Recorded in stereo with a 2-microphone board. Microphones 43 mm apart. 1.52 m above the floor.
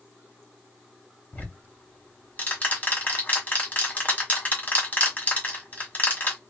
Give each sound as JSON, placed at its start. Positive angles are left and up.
{"t": 1.3, "sound": "ticking", "side_deg": 35, "distance_m": 1.4}